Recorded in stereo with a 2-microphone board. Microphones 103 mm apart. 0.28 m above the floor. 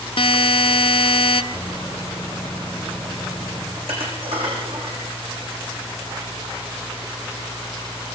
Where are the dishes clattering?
60° right (ahead or behind), 9 m.